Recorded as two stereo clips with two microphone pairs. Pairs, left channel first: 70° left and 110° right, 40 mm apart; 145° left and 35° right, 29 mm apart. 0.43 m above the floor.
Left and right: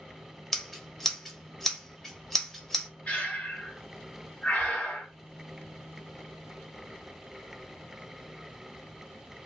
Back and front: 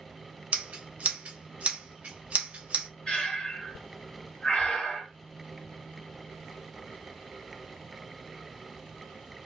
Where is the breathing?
105° left, 1.8 m.